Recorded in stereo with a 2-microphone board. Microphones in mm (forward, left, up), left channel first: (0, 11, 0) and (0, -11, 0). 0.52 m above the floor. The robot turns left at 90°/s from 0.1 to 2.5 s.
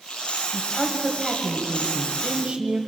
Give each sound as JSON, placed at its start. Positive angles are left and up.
{"t": 0.5, "sound": "a woman speaking", "azimuth_deg": 55, "distance_m": 2.5}